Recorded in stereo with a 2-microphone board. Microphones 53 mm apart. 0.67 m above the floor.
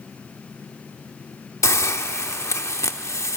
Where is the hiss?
75° left (ahead or behind), 0.9 m.